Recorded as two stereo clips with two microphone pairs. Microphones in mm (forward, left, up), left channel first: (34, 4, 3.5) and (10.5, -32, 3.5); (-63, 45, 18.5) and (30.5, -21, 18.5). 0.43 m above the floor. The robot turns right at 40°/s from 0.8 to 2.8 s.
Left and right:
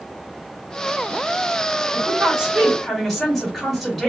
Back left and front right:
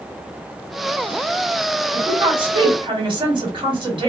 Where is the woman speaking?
70° right, 1.8 m; by 4.1 s 35° right, 1.8 m.